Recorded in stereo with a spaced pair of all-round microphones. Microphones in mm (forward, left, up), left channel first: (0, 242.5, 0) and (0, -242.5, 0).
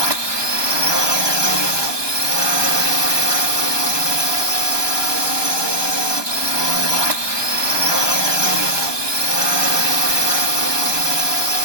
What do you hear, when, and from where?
0.0 s a drone: 60° right (ahead or behind)